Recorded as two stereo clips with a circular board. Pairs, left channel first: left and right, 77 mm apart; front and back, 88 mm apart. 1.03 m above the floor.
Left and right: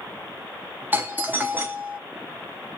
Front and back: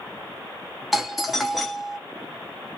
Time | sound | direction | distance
0.9 | a doorbell | 95° right | 0.5 m